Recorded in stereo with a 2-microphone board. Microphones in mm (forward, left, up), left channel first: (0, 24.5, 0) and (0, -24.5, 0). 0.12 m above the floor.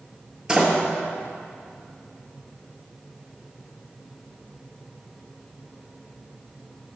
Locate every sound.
0.5 s a door slam: 15° right (ahead or behind), 1.4 m